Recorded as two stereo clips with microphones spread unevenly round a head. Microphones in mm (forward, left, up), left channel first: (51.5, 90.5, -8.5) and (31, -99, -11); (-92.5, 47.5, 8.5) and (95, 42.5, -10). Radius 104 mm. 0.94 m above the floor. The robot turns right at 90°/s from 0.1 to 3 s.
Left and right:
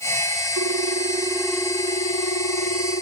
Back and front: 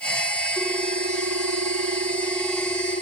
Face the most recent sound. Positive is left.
turn(degrees=130)